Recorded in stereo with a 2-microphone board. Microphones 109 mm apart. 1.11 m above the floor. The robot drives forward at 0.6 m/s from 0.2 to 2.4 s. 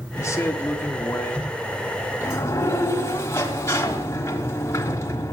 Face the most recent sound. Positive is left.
turn(degrees=30)  # may be behind; listen again after turning